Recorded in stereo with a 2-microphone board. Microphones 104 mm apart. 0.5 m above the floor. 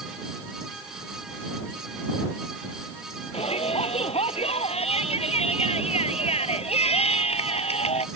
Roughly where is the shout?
Left.